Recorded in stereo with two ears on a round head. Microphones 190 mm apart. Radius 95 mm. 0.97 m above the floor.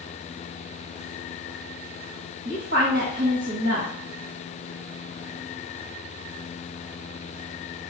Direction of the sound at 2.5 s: 55° right (ahead or behind).